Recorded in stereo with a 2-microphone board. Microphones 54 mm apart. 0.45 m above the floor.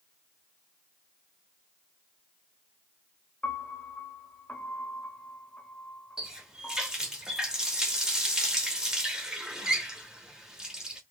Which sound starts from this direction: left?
A piano, at 3.4 s.